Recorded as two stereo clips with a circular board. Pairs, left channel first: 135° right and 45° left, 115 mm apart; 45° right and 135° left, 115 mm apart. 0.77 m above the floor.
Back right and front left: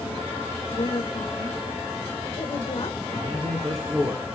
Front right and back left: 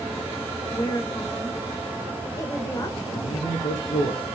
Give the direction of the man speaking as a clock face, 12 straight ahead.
2 o'clock.